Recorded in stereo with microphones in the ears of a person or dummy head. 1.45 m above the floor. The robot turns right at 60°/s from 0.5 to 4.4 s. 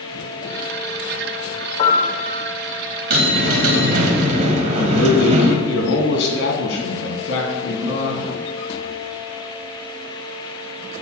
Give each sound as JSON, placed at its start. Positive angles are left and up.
{"t": 1.8, "sound": "a piano", "azimuth_deg": 145, "distance_m": 2.0}
{"t": 3.1, "sound": "a bell", "azimuth_deg": -125, "distance_m": 1.7}
{"t": 4.8, "sound": "a man speaking", "side_deg": 75, "distance_m": 2.5}